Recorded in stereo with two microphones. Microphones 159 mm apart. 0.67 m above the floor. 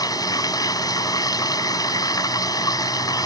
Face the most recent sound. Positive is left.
turn(degrees=25)  # may be behind; listen again after turning